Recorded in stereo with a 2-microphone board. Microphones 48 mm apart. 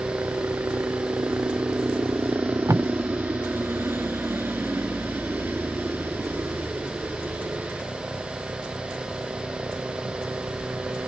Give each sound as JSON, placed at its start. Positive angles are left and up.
{"t": 0.0, "sound": "a helicopter", "side_deg": -60}
{"t": 2.3, "sound": "tape being pulled", "side_deg": -90}